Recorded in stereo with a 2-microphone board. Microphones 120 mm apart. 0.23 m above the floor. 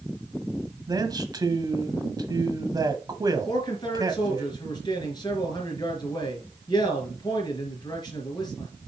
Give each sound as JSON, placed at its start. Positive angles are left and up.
{"t": 0.9, "sound": "a man speaking", "side_deg": -30, "distance_m": 1.2}
{"t": 3.5, "sound": "a man speaking", "side_deg": 35, "distance_m": 3.5}